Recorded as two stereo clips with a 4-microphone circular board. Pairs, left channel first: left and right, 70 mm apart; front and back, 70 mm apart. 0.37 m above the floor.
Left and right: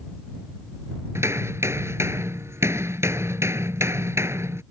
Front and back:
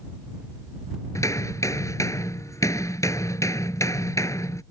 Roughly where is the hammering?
Ahead right.